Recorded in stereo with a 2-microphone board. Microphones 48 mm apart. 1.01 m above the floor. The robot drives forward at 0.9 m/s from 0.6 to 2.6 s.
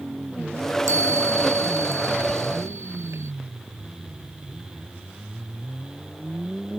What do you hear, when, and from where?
0.9 s a chime: 80° right; by 3.3 s 75° right (ahead or behind)